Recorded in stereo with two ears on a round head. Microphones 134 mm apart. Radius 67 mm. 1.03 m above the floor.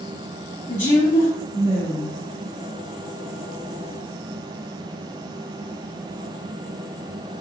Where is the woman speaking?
45° left (ahead or behind), 1.6 m.